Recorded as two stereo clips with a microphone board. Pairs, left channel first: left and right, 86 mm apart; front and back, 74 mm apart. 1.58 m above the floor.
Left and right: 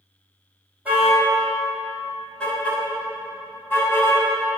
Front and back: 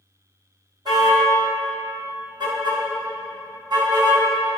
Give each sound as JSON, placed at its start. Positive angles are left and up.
{"t": 0.8, "sound": "a car horn", "azimuth_deg": -165, "distance_m": 4.5}